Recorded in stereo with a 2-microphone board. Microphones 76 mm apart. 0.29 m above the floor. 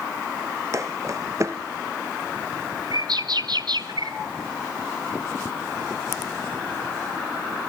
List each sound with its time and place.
0.7 s footsteps: 40° right (ahead or behind), 1.3 m
2.9 s a bird: 65° right (ahead or behind), 1.3 m